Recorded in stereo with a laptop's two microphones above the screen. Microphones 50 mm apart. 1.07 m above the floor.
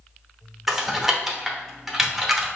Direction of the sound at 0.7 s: 5° right (ahead or behind).